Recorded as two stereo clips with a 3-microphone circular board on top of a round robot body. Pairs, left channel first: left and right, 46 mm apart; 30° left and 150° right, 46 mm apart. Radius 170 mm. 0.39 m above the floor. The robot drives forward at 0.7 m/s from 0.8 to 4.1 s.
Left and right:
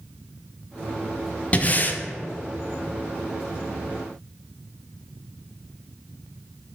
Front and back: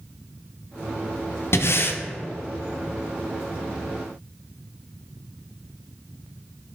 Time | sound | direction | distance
1.5 | breathing | 35° left | 0.9 m